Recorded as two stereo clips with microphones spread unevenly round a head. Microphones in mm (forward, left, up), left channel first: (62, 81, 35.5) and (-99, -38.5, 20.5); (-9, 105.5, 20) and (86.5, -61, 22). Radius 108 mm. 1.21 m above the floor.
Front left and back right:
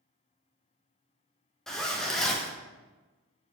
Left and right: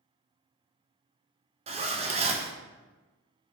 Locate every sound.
1.7 s a zipper: 60° right, 0.5 m